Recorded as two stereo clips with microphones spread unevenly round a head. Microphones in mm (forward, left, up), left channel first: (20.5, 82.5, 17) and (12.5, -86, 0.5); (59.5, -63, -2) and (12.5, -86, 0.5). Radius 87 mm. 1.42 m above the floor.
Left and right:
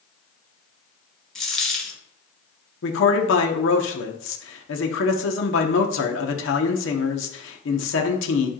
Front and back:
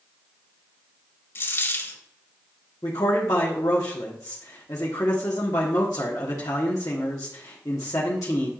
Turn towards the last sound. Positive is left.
turn(degrees=75)